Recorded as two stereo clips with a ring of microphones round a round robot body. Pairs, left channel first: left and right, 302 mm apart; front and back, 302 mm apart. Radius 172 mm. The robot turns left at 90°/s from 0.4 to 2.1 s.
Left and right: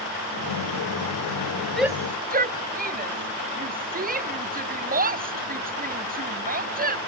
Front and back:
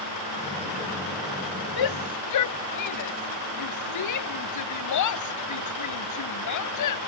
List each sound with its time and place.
1.8 s a shout: 5° left; by 7.0 s 30° right